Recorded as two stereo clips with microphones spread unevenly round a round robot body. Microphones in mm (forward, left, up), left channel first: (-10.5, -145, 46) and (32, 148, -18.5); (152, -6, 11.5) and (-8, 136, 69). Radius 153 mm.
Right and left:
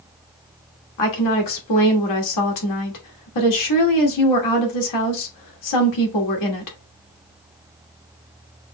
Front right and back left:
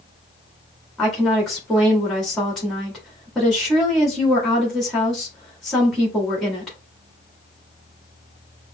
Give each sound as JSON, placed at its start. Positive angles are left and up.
{"t": 1.0, "sound": "a woman speaking", "azimuth_deg": -125, "distance_m": 1.6}